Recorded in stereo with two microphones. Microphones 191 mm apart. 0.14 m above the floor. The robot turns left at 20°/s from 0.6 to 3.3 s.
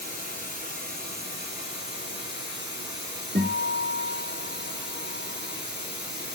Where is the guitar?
50° right (ahead or behind), 2.5 m.